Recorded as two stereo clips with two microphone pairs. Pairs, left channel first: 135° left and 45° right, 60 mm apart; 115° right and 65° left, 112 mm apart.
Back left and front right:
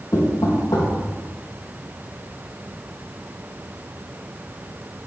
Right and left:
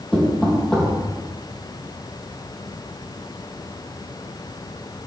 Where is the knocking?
160° left, 3.5 m.